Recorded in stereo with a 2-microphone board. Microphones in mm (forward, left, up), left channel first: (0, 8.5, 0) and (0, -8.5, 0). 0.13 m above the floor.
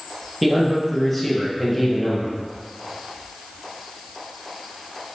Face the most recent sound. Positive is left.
turn(degrees=20)  # may be behind; listen again after turning